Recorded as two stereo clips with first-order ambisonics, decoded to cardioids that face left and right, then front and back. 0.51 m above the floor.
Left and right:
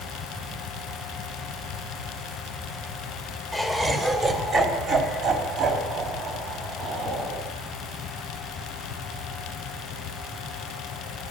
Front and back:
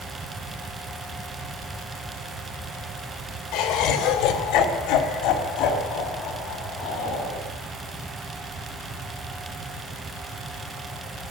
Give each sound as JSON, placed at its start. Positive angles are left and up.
{"t": 3.5, "sound": "laughter", "azimuth_deg": -5, "distance_m": 2.0}